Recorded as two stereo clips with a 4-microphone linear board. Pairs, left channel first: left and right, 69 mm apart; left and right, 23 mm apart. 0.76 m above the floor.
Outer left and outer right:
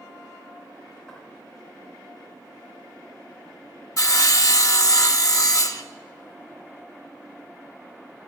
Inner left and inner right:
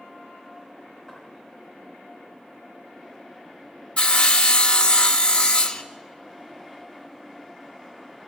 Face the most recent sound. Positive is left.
turn(degrees=50)  # may be behind; listen again after turning